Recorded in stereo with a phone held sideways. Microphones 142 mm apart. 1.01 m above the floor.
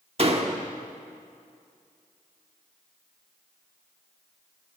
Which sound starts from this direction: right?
A door slam, at 0.2 s.